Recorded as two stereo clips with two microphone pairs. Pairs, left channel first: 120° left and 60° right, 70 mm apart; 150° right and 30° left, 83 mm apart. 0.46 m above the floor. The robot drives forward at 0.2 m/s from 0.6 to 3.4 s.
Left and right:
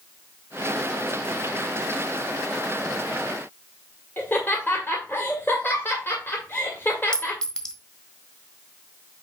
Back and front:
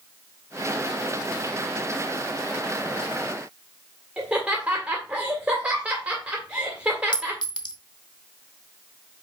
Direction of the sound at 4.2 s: 90° left.